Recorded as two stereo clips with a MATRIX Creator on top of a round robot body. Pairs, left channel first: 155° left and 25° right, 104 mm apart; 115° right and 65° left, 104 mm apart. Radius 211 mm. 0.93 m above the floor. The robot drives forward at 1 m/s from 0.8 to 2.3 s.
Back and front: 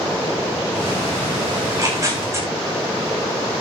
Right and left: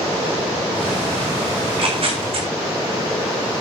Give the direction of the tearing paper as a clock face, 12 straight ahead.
11 o'clock.